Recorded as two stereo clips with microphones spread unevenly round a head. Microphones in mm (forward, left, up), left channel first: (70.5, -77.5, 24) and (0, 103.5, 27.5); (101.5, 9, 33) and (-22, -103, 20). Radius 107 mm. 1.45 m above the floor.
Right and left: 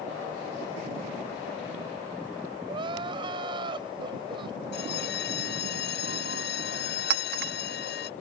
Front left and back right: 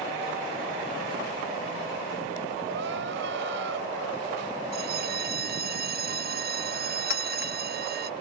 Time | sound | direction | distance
2.7 | crying | straight behind | ?
4.7 | a bell | 115° right | ?
7.1 | a clink | 80° left | ?